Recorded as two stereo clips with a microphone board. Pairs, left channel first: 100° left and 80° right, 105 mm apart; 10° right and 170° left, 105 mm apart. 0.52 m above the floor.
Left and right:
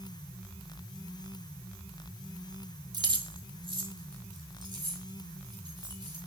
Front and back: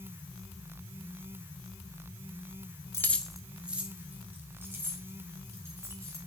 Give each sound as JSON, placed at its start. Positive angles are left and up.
{"t": 2.9, "sound": "keys jangling", "azimuth_deg": -65, "distance_m": 0.7}